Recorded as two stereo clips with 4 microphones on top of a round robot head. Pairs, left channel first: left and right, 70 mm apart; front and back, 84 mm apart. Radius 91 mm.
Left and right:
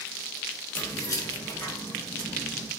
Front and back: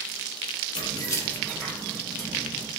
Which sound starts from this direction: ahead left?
Keys jangling, at 0.8 s.